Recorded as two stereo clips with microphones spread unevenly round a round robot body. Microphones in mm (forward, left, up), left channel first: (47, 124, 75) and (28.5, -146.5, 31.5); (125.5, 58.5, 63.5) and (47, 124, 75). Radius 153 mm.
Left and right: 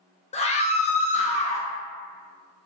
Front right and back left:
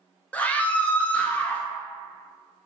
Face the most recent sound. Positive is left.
turn(degrees=20)